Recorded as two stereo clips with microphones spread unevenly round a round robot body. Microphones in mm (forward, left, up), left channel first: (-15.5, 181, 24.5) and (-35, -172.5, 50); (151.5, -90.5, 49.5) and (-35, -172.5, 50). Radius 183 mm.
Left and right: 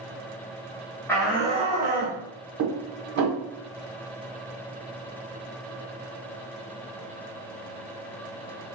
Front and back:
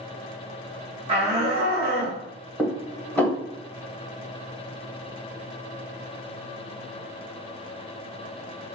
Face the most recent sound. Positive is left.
turn(degrees=-60)